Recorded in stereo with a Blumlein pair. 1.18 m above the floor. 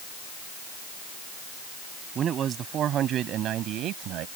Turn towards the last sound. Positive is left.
turn(degrees=-35)